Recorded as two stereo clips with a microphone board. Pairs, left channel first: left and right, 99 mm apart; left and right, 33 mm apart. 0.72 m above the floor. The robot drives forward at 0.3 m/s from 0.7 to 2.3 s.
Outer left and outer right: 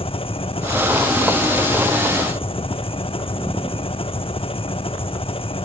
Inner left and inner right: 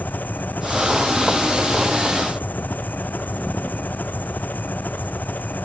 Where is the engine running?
70° left (ahead or behind).